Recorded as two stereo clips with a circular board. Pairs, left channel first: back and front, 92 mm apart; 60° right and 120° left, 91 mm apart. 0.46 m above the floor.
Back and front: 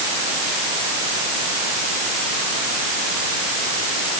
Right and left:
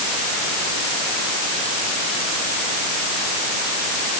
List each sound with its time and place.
Only background noise.